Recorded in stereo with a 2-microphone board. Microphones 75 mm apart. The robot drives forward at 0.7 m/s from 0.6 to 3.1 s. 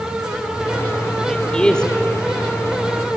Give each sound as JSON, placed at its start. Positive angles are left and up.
{"t": 1.3, "sound": "a man speaking", "side_deg": 10, "distance_m": 2.0}